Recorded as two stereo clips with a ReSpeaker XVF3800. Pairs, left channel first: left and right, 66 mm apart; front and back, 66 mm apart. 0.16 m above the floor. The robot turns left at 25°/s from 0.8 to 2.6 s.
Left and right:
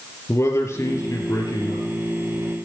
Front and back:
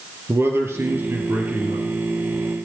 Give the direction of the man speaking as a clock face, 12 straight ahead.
8 o'clock.